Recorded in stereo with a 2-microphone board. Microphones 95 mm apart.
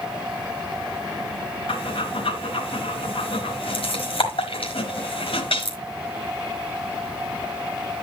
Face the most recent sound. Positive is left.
turn(degrees=70)  # may be behind; listen again after turning